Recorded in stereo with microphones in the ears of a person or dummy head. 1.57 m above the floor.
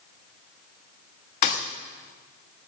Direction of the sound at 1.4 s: 35° left (ahead or behind).